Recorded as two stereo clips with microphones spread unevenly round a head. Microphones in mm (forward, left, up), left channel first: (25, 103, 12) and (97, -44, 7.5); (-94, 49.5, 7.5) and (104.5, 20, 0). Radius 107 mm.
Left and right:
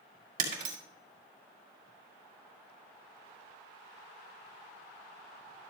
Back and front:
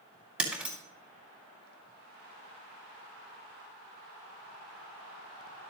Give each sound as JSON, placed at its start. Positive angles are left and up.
{"t": 0.4, "sound": "breaking glass", "azimuth_deg": -95, "distance_m": 2.0}